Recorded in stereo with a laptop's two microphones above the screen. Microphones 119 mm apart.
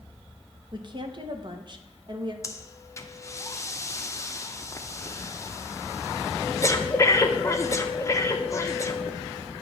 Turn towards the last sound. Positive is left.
turn(degrees=25)  # may be behind; listen again after turning